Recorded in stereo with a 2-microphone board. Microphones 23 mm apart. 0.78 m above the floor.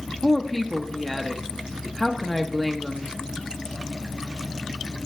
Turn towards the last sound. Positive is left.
turn(degrees=5)  # may be behind; listen again after turning